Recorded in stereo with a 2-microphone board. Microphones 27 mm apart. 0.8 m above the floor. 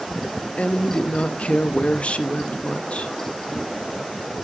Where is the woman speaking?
50° left (ahead or behind), 0.5 m.